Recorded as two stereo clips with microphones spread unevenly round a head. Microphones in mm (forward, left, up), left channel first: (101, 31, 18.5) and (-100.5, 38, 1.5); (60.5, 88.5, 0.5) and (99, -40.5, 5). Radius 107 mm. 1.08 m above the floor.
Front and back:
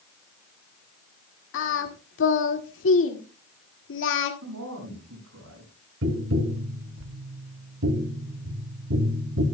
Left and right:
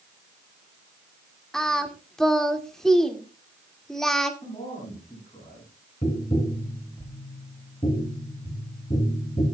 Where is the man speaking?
175° left, 7.5 m.